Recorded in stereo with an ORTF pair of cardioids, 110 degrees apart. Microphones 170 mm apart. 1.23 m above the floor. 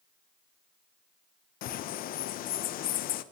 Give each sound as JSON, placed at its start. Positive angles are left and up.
{"t": 1.6, "sound": "a bird", "azimuth_deg": 65, "distance_m": 0.7}